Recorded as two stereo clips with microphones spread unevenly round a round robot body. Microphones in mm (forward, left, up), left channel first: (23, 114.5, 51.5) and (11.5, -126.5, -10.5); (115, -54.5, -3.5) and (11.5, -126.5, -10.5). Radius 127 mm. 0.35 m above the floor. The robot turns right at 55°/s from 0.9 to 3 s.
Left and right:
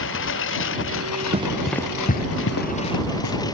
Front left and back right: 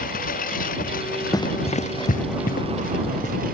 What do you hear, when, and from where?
0.0 s a lawn mower: 50° left; by 3.5 s 165° left
1.3 s running footsteps: 25° right; by 3.4 s 95° left